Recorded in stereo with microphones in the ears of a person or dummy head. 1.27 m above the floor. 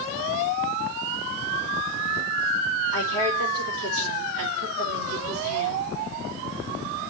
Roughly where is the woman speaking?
Right.